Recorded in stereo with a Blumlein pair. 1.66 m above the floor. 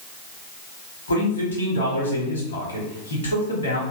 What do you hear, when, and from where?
1.1 s a man speaking: 65° left, 1.1 m